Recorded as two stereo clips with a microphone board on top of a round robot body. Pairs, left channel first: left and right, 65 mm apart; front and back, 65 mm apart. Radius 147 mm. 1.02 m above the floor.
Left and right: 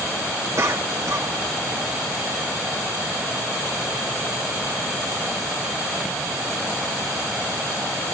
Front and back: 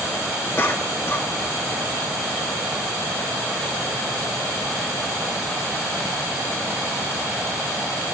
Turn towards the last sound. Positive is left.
turn(degrees=-50)